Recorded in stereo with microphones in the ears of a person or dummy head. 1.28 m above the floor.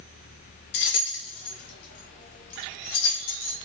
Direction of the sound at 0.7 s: 55° left (ahead or behind).